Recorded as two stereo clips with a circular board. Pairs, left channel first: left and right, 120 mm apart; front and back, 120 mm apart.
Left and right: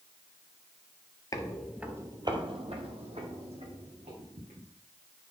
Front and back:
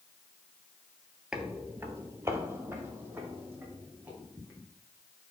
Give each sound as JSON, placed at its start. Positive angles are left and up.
{"t": 1.3, "sound": "footsteps", "azimuth_deg": 105, "distance_m": 0.9}